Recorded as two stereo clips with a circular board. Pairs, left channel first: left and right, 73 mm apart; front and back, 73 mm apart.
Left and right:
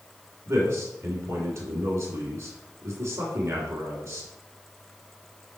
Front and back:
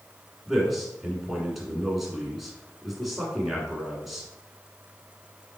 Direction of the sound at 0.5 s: 95° right.